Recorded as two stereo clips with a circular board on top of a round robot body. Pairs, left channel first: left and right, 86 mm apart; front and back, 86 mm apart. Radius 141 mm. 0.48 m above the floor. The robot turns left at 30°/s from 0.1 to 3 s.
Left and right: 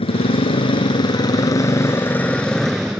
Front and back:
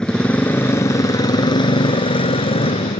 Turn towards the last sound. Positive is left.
turn(degrees=-5)